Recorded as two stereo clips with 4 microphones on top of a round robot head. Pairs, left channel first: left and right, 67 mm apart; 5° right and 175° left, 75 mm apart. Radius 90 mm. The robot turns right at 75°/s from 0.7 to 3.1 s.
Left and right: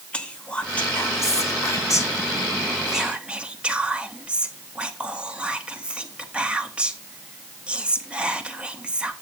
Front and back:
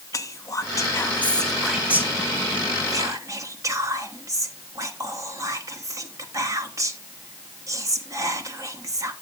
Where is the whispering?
20° left, 1.2 m; by 9.1 s 160° right, 1.2 m.